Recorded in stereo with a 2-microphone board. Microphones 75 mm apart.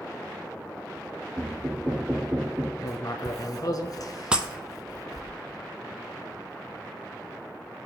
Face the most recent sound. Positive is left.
turn(degrees=-10)  # may be behind; listen again after turning